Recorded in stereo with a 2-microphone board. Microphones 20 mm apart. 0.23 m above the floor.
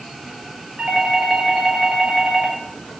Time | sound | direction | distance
0.8 | a doorbell | 60° right (ahead or behind) | 5.5 m